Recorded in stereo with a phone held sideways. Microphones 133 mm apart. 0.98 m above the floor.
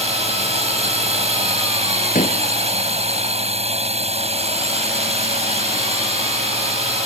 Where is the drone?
55° right (ahead or behind).